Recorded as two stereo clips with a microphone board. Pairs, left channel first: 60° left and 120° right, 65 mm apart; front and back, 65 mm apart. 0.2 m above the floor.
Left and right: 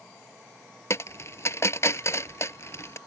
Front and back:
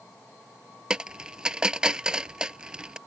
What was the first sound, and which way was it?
A dropped coin, 100° left.